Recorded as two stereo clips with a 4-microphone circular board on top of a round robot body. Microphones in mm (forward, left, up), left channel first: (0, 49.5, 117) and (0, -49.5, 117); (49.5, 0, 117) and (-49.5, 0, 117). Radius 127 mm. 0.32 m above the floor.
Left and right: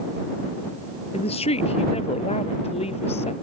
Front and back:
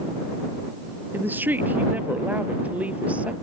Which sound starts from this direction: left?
A woman speaking, at 1.1 s.